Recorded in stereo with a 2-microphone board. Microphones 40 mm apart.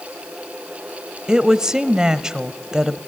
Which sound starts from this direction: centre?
A woman speaking, at 1.3 s.